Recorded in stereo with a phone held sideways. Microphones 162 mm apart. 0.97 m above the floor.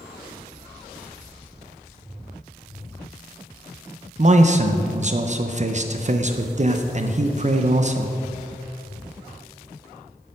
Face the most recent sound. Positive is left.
turn(degrees=-45)  # may be behind; listen again after turning